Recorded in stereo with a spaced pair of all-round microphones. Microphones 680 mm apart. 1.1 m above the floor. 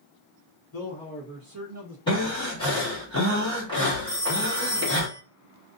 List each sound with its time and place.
0.7 s a man speaking: 35° left (ahead or behind), 0.7 m; by 2.0 s 30° right (ahead or behind), 1.4 m
2.1 s breathing: 5° left (ahead or behind), 1.5 m
4.1 s a phone ringing: 70° left (ahead or behind), 1.0 m